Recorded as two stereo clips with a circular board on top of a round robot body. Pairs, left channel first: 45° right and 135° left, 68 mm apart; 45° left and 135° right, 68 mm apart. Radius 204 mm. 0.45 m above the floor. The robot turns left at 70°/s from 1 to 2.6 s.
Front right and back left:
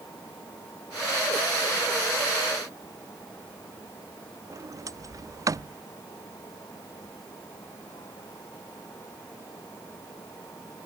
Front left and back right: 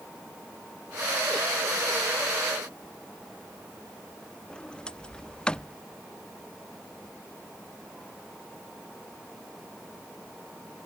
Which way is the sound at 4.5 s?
120° left.